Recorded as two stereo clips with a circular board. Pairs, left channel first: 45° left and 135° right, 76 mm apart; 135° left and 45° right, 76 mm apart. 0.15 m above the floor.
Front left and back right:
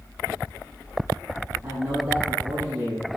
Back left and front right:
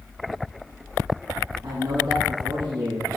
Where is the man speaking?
70° right, 4 m.